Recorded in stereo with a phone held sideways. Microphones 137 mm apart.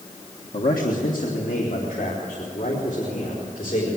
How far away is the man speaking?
About 1.5 m.